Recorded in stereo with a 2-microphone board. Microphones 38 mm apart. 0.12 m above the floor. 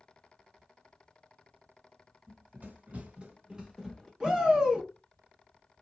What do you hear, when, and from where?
2.3 s running footsteps: 60° right (ahead or behind), 1.2 m; by 4.1 s centre (ahead or behind), 0.9 m
4.2 s a shout: 20° right (ahead or behind), 1.2 m